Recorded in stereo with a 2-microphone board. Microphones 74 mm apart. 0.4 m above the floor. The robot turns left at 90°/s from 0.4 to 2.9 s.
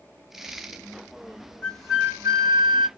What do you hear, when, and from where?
1.6 s a flute: 15° left, 2.5 m; by 2.9 s 100° right, 2.5 m